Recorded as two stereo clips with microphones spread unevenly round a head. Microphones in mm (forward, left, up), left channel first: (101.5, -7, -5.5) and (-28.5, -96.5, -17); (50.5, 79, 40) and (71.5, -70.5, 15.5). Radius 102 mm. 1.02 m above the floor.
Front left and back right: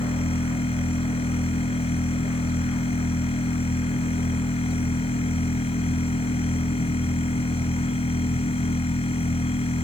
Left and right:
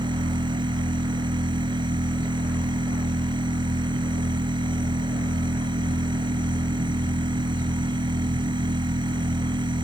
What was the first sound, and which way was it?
A machine running, 20° right.